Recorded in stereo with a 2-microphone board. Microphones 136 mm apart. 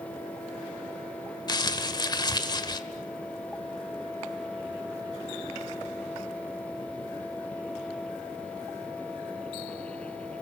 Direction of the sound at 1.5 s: 30° left (ahead or behind).